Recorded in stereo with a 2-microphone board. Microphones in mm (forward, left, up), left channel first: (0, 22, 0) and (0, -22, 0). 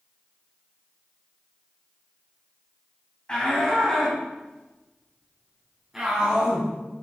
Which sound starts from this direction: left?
A shout, at 3.3 s.